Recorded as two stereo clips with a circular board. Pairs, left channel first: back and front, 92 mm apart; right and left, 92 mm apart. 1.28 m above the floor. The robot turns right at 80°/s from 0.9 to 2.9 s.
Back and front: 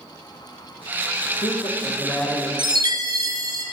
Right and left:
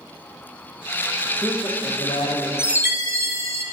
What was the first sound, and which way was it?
A man speaking, straight behind.